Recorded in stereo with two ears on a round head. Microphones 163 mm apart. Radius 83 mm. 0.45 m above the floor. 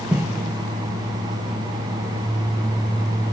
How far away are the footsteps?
About 1.1 m.